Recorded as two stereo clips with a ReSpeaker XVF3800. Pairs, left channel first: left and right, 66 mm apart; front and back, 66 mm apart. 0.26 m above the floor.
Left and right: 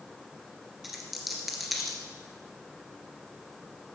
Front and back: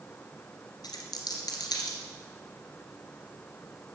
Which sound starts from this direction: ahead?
A dropped coin, at 0.8 s.